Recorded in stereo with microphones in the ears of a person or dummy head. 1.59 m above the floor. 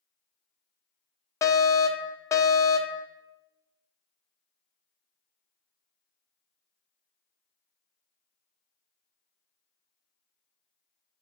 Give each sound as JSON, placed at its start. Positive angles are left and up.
{"t": 1.4, "sound": "a fire alarm", "side_deg": 20, "distance_m": 0.5}